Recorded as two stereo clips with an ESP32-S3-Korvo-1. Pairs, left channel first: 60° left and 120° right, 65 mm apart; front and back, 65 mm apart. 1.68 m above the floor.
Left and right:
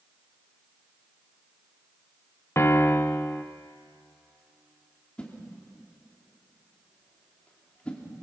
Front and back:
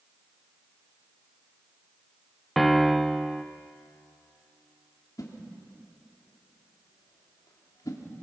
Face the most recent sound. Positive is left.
turn(degrees=-10)